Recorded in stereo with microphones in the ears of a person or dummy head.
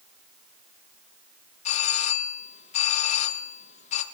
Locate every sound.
1.6 s a doorbell: 35° left (ahead or behind), 2.5 m